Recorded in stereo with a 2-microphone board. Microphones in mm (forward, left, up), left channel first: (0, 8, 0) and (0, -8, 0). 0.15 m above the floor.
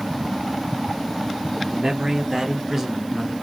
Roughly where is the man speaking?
Right.